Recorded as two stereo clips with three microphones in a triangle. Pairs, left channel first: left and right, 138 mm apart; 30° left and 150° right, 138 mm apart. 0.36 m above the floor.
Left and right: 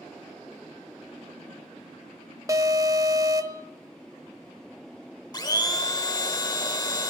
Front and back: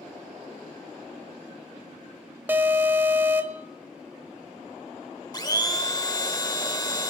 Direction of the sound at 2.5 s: 95° right.